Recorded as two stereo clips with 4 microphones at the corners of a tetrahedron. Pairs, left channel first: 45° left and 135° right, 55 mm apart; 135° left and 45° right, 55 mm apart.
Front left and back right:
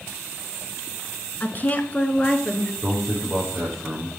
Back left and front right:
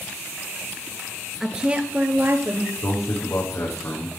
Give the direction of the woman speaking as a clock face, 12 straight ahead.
11 o'clock.